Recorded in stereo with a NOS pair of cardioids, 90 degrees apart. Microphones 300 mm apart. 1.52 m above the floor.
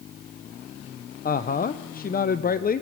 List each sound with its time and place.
1.2 s a woman speaking: 30° left, 0.8 m